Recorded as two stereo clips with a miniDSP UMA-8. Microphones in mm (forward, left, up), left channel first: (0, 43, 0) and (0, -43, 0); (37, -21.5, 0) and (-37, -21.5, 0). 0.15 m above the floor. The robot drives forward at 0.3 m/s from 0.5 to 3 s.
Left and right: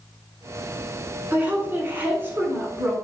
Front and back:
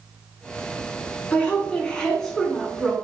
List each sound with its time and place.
1.3 s a woman speaking: 45° right, 1.1 m; by 3.0 s 105° right, 1.1 m